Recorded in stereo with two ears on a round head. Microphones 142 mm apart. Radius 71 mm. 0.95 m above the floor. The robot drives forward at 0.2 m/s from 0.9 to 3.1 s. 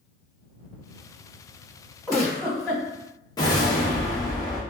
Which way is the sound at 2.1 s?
5° left (ahead or behind).